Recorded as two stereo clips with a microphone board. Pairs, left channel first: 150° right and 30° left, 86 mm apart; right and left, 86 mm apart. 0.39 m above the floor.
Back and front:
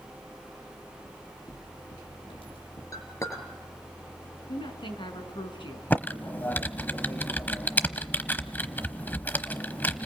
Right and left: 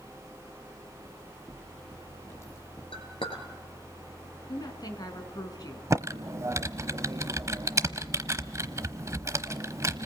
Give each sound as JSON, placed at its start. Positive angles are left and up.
{"t": 1.1, "sound": "footsteps", "azimuth_deg": -165, "distance_m": 7.5}
{"t": 2.9, "sound": "a clink", "azimuth_deg": -95, "distance_m": 4.0}
{"t": 4.5, "sound": "a woman speaking", "azimuth_deg": -135, "distance_m": 4.5}
{"t": 5.9, "sound": "typing on a keyboard", "azimuth_deg": 140, "distance_m": 1.0}